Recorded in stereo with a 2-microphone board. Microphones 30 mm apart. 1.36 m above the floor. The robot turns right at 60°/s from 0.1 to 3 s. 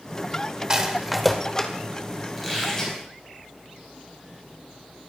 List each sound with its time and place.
0.7 s a rattle: 25° right (ahead or behind), 1.5 m; by 1.7 s 25° left (ahead or behind), 1.5 m
2.4 s a squeak: 5° right, 5.5 m; by 3.0 s 30° left, 5.5 m